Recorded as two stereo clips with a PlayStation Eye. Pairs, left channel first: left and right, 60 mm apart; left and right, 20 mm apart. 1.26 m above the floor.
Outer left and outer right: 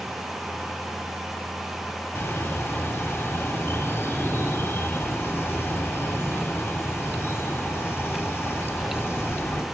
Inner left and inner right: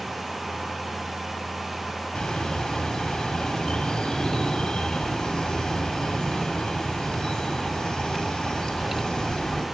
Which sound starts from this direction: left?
A bird, at 2.1 s.